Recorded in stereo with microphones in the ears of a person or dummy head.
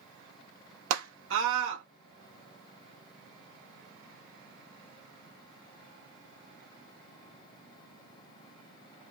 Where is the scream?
75° right (ahead or behind), 0.8 m.